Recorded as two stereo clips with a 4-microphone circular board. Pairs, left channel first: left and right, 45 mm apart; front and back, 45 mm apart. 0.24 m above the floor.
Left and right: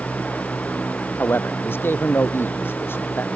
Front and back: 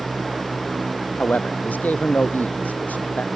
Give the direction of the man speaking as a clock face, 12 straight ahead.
10 o'clock.